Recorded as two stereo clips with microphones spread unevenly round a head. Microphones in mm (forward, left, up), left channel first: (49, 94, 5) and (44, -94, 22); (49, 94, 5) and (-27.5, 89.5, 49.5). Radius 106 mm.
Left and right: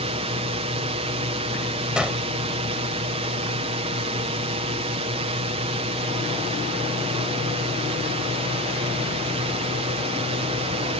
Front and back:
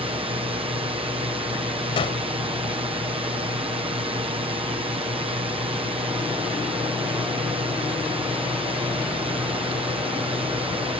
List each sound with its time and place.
0.0 s a drone: 150° right
2.0 s a gunshot: 5° right